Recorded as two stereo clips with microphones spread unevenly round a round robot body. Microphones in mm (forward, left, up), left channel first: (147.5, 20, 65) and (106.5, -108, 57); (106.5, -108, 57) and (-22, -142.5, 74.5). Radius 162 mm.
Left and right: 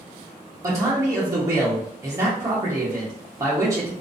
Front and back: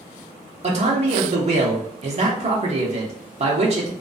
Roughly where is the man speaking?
Behind right.